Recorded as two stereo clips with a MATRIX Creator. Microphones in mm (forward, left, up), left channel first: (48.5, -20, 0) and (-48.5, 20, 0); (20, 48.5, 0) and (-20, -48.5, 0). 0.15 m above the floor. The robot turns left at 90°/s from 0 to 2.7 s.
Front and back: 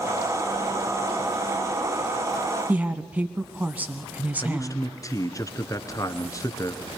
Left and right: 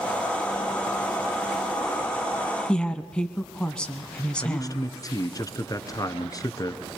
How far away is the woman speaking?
About 1.1 m.